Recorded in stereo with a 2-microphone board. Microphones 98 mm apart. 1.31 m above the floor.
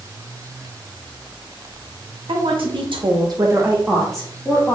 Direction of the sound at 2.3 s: 70° right (ahead or behind).